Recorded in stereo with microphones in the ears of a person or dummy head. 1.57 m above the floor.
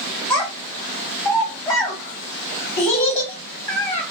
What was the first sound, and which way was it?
A child speaking, 20° left (ahead or behind).